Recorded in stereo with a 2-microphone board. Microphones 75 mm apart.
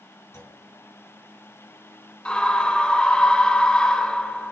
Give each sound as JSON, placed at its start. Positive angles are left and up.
{"t": 0.3, "sound": "a clunk", "side_deg": 40, "distance_m": 3.0}
{"t": 2.2, "sound": "a scream", "side_deg": 15, "distance_m": 1.6}